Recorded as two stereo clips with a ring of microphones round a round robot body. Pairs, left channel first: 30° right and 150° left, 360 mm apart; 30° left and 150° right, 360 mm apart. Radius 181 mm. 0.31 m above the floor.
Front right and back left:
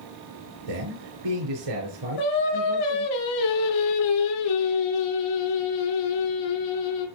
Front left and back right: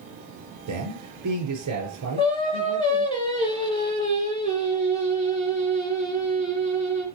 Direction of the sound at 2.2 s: 45° right.